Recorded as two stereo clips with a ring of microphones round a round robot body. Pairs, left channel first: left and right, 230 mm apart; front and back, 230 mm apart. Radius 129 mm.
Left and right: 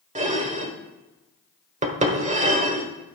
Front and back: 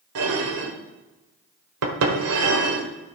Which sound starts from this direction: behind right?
Dishes clattering, at 0.1 s.